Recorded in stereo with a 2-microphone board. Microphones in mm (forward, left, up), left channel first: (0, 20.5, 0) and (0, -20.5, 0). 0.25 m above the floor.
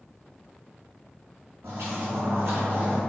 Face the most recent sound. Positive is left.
turn(degrees=-45)  # may be behind; listen again after turning